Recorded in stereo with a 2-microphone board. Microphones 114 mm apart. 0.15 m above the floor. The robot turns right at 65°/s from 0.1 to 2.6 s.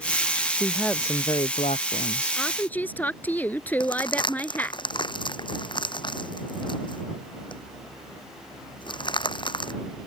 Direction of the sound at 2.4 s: Centre (ahead or behind).